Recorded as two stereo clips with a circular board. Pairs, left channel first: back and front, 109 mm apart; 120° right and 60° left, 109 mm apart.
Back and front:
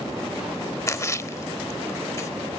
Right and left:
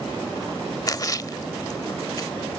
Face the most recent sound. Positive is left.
turn(degrees=-140)